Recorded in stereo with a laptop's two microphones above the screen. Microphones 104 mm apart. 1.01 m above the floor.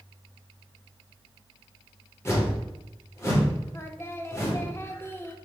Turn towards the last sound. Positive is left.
turn(degrees=25)  # may be behind; listen again after turning